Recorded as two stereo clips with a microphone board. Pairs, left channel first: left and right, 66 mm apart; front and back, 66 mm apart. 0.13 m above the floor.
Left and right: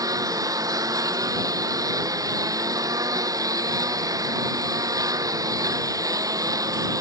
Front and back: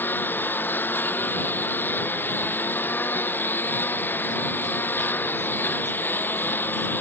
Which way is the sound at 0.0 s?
60° right.